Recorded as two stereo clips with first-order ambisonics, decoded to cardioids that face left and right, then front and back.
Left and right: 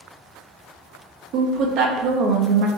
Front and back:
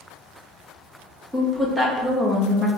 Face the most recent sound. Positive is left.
turn(degrees=-100)